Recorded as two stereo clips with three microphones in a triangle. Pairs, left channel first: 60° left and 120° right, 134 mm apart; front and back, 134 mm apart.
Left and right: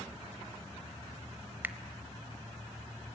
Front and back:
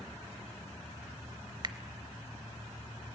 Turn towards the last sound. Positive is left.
turn(degrees=180)